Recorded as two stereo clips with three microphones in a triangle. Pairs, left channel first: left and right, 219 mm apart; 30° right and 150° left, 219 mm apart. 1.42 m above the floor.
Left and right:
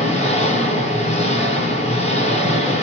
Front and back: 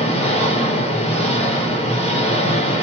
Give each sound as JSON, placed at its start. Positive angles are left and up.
{"t": 0.0, "sound": "an engine running", "azimuth_deg": 30, "distance_m": 0.8}